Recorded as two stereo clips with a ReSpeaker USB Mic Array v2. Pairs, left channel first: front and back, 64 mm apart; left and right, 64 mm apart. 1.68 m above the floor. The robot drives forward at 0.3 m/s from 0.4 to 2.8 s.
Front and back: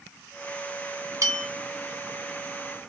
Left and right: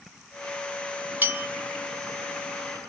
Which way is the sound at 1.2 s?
150° right.